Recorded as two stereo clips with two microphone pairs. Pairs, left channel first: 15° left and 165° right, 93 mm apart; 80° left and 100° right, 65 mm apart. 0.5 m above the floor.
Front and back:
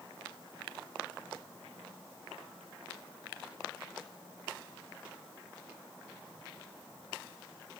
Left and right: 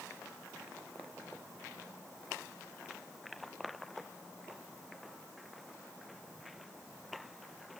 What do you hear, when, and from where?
Only background noise.